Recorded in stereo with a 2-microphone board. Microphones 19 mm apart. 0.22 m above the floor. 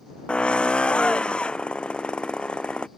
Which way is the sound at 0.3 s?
60° left (ahead or behind).